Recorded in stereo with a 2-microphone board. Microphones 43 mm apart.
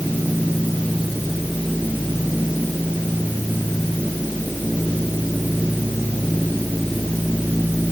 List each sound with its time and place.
Only background noise.